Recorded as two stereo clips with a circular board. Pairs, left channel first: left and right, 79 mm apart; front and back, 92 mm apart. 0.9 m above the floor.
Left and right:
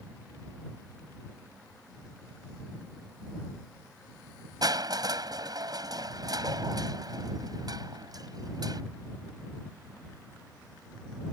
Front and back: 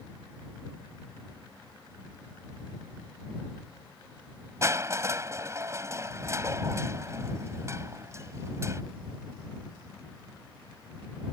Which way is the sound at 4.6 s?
120° right.